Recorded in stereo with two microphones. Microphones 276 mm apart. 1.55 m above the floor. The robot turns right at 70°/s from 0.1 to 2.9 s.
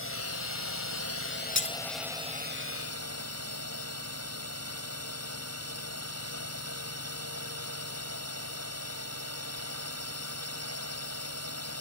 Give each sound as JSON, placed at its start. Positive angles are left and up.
{"t": 0.0, "sound": "a drone", "azimuth_deg": 50}
{"t": 1.6, "sound": "breaking glass", "side_deg": 45}